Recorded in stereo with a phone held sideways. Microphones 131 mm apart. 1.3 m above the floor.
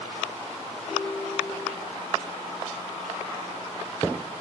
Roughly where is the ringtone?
Right.